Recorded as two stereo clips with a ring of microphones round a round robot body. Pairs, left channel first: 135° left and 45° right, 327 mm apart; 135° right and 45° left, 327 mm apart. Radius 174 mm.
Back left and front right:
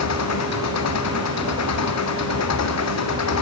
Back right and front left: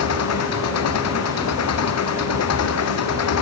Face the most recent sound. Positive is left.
turn(degrees=180)